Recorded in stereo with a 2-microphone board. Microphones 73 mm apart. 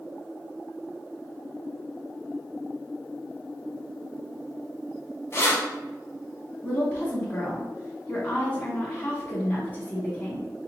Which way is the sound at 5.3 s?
35° left (ahead or behind).